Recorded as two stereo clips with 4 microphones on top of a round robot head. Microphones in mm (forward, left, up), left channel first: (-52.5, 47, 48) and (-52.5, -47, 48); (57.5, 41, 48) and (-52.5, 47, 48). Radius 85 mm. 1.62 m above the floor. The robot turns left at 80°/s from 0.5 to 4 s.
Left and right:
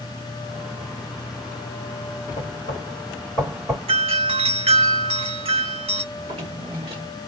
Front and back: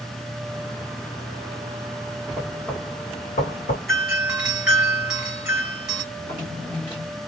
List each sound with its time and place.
2.4 s knocking: 100° left, 1.8 m; by 3.8 s 15° right, 1.8 m
3.9 s a doorbell: 90° right, 1.4 m; by 6.0 s 100° right, 1.4 m
6.1 s a drawer: 65° right, 1.3 m